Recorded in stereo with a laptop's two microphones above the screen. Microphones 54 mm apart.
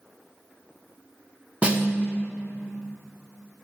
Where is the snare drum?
20° right (ahead or behind), 0.6 m.